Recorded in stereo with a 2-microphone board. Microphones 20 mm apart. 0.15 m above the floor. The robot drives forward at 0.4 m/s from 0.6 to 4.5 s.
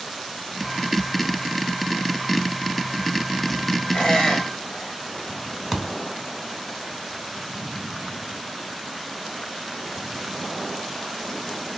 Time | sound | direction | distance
3.9 | a squeak | 55° left (ahead or behind) | 1.0 m
5.7 | a thud | 15° right (ahead or behind) | 0.7 m